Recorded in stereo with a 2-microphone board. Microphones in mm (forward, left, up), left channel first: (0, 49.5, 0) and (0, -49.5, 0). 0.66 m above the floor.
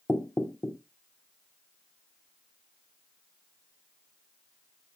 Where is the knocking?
20° left (ahead or behind), 0.7 m.